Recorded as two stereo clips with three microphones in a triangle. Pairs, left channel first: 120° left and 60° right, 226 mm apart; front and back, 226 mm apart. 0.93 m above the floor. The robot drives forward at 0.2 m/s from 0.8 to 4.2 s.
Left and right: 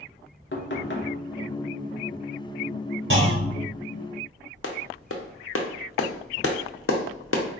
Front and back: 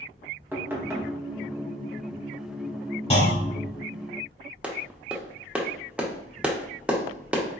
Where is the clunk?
60° right, 1.1 m; by 3.7 s 65° right, 1.0 m.